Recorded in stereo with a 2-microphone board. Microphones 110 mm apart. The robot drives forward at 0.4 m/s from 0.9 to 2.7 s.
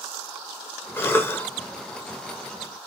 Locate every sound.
1.0 s a cough: 20° left (ahead or behind), 0.8 m